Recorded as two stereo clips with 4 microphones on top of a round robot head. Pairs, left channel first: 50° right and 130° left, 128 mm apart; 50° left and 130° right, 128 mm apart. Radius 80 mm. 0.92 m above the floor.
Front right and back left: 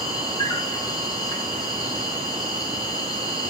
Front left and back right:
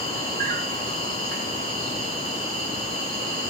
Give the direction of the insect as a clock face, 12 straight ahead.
4 o'clock.